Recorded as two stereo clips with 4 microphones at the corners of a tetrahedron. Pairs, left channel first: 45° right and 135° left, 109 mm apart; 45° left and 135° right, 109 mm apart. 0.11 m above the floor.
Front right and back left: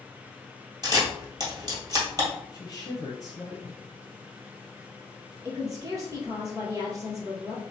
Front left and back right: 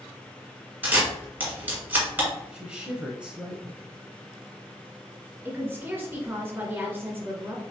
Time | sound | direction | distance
0.8 | a camera shutter | 160° left | 1.9 m
2.5 | a woman speaking | 60° right | 1.3 m
5.5 | a woman speaking | 170° left | 1.6 m